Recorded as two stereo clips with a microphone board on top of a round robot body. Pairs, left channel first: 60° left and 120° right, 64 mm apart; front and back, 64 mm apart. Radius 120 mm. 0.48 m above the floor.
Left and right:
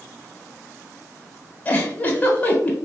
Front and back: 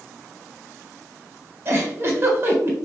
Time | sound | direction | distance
1.6 | a giggle | 125° left | 1.4 m